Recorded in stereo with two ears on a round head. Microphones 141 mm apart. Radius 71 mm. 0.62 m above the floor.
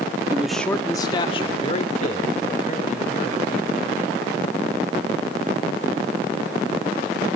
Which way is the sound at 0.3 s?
15° right (ahead or behind).